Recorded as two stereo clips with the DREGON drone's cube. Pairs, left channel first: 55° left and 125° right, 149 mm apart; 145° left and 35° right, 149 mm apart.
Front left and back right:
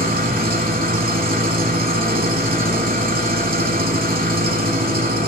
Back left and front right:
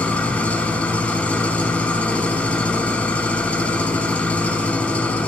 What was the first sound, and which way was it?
An engine running, 135° right.